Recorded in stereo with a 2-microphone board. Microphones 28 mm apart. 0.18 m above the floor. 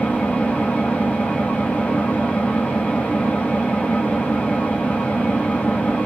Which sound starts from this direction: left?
An engine running, at 0.0 s.